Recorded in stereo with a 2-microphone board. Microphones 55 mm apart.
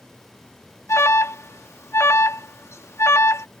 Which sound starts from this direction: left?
An alarm, at 0.9 s.